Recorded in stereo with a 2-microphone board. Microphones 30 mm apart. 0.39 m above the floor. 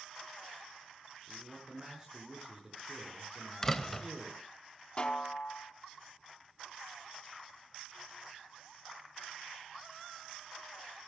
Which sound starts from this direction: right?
A man speaking, at 1.3 s.